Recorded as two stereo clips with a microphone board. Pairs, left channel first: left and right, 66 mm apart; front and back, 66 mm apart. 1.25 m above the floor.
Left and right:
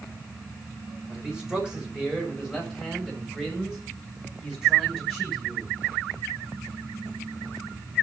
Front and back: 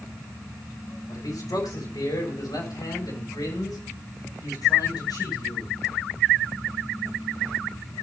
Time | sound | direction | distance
1.1 | a man speaking | 15° right | 5.5 m